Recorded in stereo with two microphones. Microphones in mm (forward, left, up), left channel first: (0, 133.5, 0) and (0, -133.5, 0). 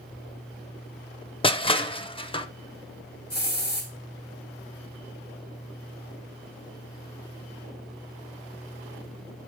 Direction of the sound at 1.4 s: 20° left (ahead or behind).